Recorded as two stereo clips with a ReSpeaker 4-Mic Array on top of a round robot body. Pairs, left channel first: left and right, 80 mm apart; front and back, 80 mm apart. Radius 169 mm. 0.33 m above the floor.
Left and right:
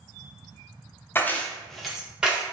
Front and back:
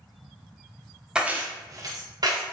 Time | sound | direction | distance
1.1 | keys jangling | 110° left | 0.6 m